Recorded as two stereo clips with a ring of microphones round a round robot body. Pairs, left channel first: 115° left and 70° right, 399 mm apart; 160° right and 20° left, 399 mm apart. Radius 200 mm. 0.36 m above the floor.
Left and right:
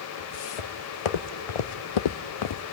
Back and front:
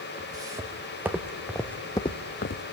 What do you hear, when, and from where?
0.2 s footsteps: 105° left, 1.9 m; by 2.6 s 155° left, 0.5 m